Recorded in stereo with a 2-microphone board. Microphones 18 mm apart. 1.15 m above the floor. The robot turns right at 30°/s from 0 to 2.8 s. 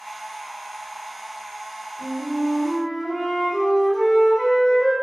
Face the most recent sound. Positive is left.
turn(degrees=-5)  # may be behind; listen again after turning